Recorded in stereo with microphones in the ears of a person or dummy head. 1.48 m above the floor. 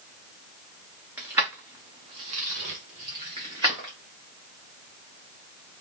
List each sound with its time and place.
1.2 s keys jangling: 10° right (ahead or behind), 0.9 m; by 3.9 s 20° right (ahead or behind), 1.0 m